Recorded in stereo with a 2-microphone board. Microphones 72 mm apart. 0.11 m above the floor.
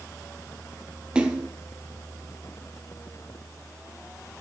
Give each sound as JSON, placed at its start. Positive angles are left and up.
{"t": 1.1, "sound": "a splash", "side_deg": -15, "distance_m": 1.1}